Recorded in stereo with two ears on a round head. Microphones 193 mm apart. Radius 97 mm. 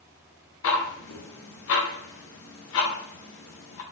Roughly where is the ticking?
Left.